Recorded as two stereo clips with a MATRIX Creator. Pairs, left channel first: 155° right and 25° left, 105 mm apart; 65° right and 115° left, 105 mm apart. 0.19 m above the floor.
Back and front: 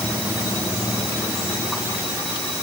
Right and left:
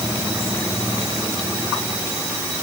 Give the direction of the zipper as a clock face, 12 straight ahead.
No zipper in this recording.